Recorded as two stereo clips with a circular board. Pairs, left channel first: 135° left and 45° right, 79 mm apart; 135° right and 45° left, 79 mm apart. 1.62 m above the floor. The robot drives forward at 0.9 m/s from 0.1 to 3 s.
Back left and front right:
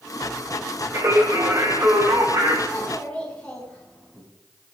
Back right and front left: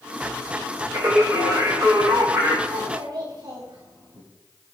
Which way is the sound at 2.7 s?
55° left.